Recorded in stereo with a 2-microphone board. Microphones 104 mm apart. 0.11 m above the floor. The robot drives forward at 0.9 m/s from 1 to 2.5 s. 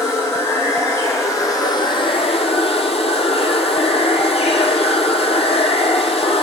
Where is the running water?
25° left (ahead or behind), 1.4 m; by 6.4 s 75° left (ahead or behind), 0.7 m.